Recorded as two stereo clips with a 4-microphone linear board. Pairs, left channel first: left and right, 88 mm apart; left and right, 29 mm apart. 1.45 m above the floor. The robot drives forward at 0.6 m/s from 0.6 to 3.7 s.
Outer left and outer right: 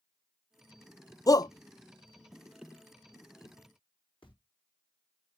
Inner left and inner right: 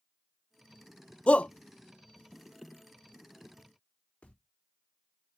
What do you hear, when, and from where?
1.3 s a shout: 45° left (ahead or behind), 0.5 m; by 1.5 s 50° left (ahead or behind), 0.5 m
4.2 s footsteps: 75° left (ahead or behind), 5 m